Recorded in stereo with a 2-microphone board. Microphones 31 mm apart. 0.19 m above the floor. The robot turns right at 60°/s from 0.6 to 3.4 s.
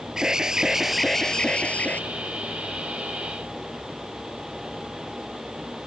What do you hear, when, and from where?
0.2 s an alarm: 25° right; by 2.0 s 65° left